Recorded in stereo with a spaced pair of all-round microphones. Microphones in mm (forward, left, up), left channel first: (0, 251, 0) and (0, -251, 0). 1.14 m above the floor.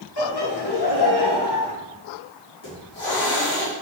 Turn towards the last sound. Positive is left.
turn(degrees=60)  # may be behind; listen again after turning